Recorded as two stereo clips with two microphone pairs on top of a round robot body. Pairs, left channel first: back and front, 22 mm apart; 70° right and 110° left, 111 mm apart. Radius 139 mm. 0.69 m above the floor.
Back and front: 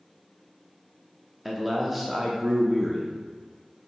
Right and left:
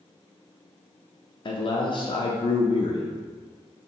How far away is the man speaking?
About 0.5 m.